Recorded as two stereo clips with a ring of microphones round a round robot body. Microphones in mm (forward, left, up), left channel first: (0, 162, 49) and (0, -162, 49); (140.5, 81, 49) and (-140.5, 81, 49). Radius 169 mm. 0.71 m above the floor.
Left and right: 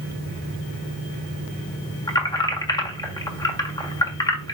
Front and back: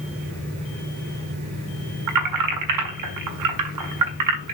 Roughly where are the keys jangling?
Behind.